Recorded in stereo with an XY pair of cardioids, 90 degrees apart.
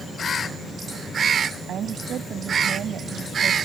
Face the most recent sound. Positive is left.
turn(degrees=-65)